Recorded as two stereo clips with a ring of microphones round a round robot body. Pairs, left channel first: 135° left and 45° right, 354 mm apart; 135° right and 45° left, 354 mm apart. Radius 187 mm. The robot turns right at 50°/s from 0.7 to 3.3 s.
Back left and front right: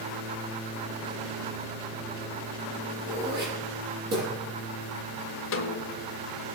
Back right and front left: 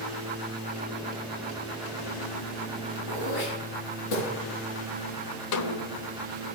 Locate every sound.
3.1 s throat clearing: 120° right, 7.5 m; by 4.3 s 110° right, 7.5 m
5.5 s a snare drum: 170° right, 1.2 m